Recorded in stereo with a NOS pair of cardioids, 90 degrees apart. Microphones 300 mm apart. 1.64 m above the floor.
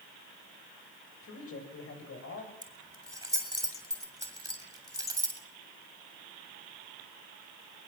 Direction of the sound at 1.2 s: 50° left.